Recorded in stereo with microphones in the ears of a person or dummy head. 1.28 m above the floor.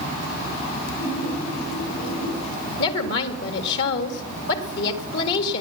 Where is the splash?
75° left (ahead or behind), 8.5 m.